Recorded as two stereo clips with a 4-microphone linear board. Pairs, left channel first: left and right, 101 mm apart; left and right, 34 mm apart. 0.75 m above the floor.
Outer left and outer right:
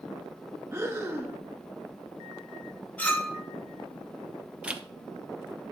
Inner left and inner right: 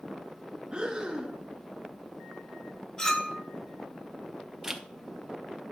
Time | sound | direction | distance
0.7 | breathing | 25° right (ahead or behind) | 1.0 m
3.0 | a clink | 15° left (ahead or behind) | 1.6 m
4.6 | a zipper | 10° right (ahead or behind) | 0.8 m